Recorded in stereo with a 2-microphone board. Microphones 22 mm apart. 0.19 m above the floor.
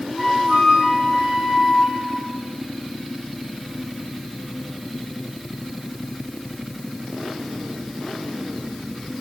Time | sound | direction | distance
0.2 | a flute | 35° right (ahead or behind) | 2 m